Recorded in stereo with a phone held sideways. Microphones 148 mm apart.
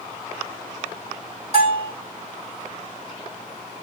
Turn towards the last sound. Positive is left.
turn(degrees=-45)  # may be behind; listen again after turning